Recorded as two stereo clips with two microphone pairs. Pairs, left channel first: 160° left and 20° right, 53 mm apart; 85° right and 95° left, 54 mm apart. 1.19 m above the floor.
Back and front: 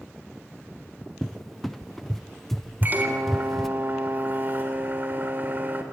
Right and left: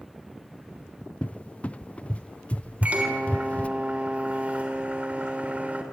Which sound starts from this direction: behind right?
A cupboard door, at 1.2 s.